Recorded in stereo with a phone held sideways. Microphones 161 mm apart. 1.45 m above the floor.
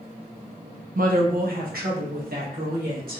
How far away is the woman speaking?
About 0.7 m.